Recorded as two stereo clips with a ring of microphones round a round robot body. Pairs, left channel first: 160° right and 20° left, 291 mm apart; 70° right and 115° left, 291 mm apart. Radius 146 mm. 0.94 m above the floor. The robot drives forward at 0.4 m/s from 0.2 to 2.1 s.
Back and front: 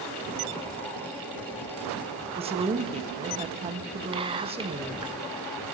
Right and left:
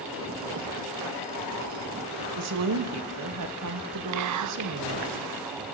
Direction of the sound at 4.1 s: 95° left.